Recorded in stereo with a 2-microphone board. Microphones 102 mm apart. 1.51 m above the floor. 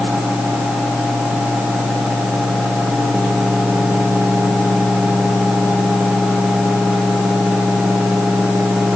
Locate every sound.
Only background noise.